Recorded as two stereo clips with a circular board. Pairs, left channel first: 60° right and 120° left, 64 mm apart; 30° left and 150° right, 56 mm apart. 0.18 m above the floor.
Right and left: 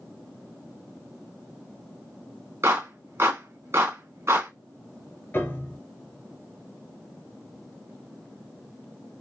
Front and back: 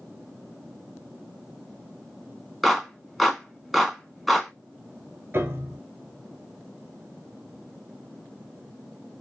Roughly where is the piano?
Right.